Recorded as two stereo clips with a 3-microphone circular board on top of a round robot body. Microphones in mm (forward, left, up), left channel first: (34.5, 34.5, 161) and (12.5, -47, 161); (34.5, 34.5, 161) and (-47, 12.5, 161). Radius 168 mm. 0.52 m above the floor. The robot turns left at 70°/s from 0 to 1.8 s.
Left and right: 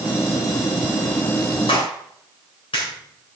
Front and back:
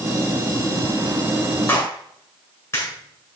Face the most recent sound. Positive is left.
turn(degrees=70)